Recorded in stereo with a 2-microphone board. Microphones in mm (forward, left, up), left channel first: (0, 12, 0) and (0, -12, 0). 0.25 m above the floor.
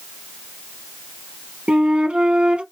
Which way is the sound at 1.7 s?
60° right (ahead or behind).